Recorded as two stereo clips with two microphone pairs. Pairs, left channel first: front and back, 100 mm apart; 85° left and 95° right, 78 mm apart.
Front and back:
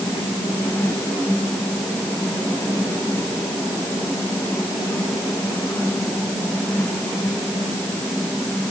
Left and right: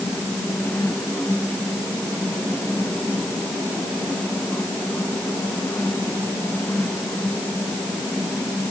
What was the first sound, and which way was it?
Only background noise.